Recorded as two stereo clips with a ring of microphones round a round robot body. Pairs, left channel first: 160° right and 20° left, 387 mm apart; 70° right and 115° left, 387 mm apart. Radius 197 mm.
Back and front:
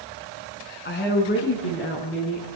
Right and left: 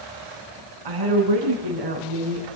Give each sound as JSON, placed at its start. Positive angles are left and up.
{"t": 0.8, "sound": "a woman speaking", "azimuth_deg": 140, "distance_m": 5.5}